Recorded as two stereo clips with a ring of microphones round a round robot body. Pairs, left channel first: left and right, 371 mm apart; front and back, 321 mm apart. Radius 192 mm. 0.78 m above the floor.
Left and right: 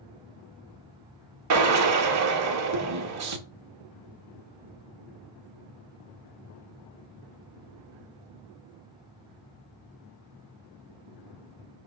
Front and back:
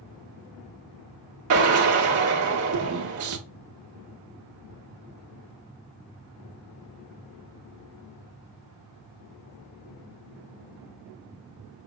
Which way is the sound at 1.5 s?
135° right.